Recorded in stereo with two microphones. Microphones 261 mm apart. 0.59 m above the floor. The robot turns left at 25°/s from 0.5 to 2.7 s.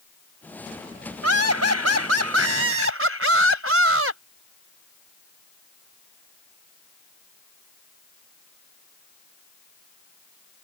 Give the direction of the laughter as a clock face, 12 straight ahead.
3 o'clock.